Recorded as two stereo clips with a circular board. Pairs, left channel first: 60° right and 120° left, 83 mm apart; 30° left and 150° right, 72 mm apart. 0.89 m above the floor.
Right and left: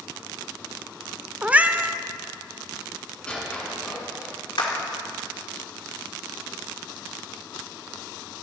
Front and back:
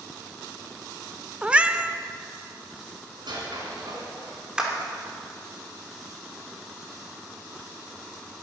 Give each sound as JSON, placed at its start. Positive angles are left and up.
{"t": 1.4, "sound": "a cat meowing", "azimuth_deg": 165, "distance_m": 0.5}
{"t": 3.2, "sound": "a squeak", "azimuth_deg": -140, "distance_m": 3.5}
{"t": 4.6, "sound": "a clap", "azimuth_deg": -70, "distance_m": 2.5}